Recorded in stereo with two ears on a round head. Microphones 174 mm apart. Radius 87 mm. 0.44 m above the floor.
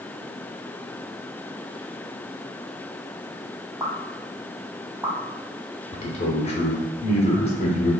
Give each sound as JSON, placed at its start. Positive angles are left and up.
{"t": 3.8, "sound": "a pop", "side_deg": -10, "distance_m": 0.9}
{"t": 5.9, "sound": "a man speaking", "side_deg": 30, "distance_m": 0.9}